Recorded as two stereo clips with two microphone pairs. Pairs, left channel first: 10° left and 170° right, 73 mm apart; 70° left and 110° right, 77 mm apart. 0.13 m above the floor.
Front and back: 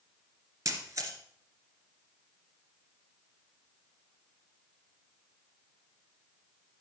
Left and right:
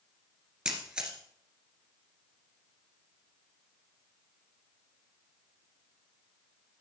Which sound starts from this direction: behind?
A camera shutter, at 0.7 s.